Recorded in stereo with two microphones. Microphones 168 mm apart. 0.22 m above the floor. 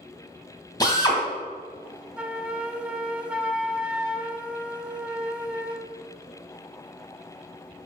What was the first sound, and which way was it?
A drill, 25° left (ahead or behind).